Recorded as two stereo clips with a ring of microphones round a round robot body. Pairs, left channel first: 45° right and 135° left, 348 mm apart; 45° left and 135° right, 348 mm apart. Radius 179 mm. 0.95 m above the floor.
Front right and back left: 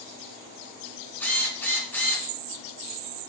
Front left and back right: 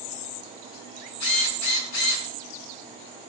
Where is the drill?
40° left, 4 m.